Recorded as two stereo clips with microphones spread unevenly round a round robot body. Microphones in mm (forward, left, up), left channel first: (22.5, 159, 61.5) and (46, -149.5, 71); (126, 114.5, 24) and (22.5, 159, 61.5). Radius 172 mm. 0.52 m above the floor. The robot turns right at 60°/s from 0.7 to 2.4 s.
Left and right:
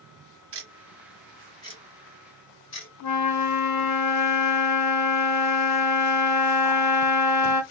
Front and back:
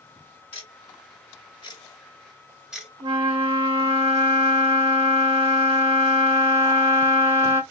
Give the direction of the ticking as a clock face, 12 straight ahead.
1 o'clock.